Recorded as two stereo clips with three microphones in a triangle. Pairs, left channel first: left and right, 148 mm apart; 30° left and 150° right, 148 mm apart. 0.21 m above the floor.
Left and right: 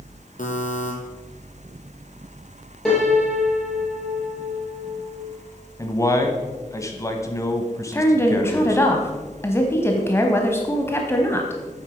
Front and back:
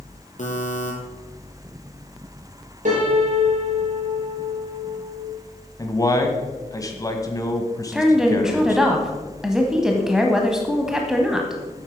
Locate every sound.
0.4 s a buzzer: 60° left, 2 m
2.9 s a piano: 175° left, 4.5 m
5.8 s a man speaking: 55° left, 1.2 m
7.9 s a woman speaking: 130° left, 1.0 m